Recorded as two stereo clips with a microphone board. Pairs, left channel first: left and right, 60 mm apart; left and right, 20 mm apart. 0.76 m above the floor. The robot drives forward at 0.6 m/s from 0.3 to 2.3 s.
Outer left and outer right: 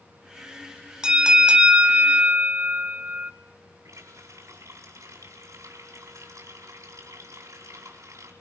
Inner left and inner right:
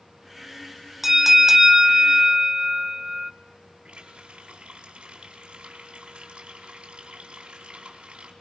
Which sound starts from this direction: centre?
A bell, at 1.0 s.